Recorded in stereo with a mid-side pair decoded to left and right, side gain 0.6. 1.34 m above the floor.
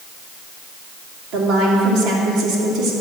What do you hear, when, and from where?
1.3 s a woman speaking: 65° right, 2.5 m